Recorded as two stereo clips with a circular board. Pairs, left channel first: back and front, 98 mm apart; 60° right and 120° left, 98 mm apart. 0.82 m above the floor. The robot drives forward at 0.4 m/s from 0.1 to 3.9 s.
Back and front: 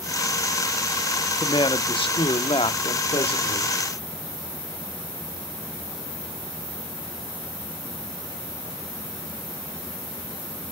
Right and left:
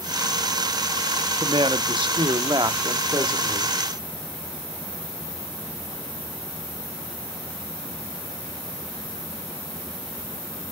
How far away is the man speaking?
About 1.1 m.